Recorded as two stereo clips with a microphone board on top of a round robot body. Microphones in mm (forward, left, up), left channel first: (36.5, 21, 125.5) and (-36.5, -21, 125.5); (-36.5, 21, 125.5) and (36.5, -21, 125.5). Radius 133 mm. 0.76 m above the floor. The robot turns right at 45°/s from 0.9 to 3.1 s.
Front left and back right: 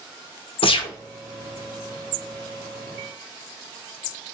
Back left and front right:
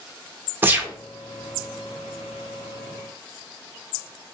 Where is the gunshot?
35° left, 0.6 m; by 0.9 s 40° left, 0.6 m.